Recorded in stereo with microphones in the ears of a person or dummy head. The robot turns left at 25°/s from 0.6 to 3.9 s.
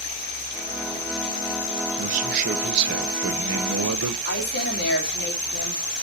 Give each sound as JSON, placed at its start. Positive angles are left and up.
{"t": 2.0, "sound": "a man speaking", "azimuth_deg": -40, "distance_m": 1.2}
{"t": 4.2, "sound": "a woman speaking", "side_deg": 60, "distance_m": 3.5}